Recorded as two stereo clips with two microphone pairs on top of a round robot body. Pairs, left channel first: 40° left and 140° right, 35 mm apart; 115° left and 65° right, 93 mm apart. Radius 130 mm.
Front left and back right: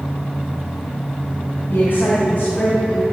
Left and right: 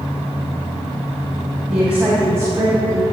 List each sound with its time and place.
1.7 s a woman speaking: 15° left, 3 m; by 3.0 s 20° right, 3 m